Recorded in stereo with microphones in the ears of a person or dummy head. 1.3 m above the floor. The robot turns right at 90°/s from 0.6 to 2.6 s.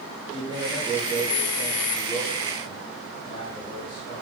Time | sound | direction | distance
0.3 | a man speaking | 30° right | 7.5 m